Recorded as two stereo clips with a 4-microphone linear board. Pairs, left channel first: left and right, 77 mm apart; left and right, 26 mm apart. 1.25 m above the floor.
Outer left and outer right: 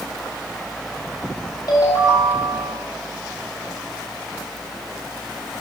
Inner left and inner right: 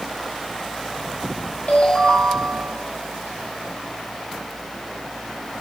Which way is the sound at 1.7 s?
60° left (ahead or behind).